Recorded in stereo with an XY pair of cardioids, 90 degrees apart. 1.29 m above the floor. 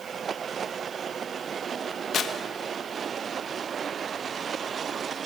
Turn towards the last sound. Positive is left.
turn(degrees=65)